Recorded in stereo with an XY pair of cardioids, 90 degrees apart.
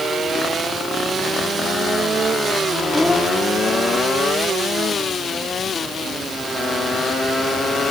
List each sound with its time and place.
2.9 s a child speaking: 10° left